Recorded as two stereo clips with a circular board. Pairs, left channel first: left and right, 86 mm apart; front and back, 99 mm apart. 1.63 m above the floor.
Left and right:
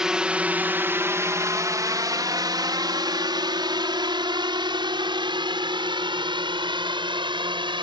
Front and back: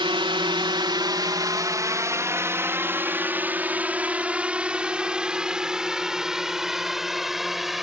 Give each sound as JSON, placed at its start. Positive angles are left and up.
{"t": 0.0, "sound": "a drone", "azimuth_deg": -170}